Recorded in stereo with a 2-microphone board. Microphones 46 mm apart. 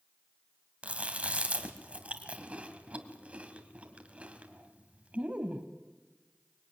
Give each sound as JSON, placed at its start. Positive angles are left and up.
{"t": 0.8, "sound": "chewing", "side_deg": -30, "distance_m": 2.0}